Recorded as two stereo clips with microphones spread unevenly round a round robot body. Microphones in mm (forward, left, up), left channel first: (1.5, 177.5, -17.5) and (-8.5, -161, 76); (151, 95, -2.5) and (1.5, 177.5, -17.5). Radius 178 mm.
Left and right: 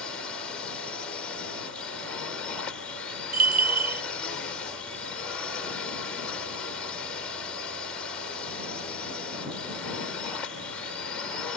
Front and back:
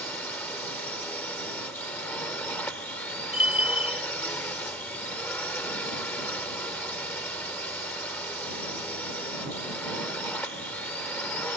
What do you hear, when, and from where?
0.0 s a drone: 40° left
3.3 s a bell: 70° right